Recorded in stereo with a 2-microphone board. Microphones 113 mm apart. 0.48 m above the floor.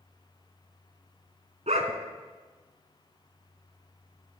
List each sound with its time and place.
1.7 s a dog barking: 80° right, 1.2 m